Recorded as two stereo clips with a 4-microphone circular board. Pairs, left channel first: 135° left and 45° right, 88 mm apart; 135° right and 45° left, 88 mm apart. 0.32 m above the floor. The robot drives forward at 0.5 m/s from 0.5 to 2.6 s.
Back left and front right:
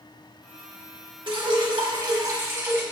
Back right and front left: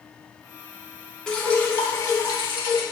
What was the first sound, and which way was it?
Dripping, 55° right.